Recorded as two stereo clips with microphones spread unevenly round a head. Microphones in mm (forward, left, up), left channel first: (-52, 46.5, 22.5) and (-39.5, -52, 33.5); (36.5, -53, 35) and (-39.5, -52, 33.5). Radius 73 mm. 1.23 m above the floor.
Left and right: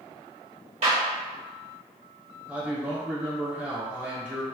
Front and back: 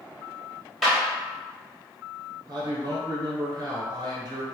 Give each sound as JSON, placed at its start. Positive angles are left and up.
{"t": 0.8, "sound": "a clap", "azimuth_deg": -90, "distance_m": 1.2}
{"t": 2.5, "sound": "a man speaking", "azimuth_deg": -165, "distance_m": 1.0}